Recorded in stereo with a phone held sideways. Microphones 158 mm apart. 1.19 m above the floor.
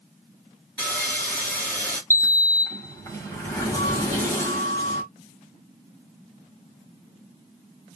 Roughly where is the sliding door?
Centre.